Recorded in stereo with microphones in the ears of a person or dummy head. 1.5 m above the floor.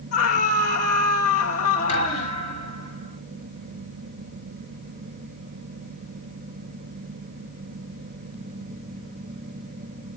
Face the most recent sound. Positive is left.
turn(degrees=35)  # may be behind; listen again after turning